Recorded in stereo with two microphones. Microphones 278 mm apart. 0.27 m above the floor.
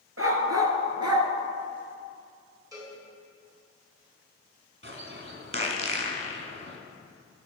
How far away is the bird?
About 1.4 m.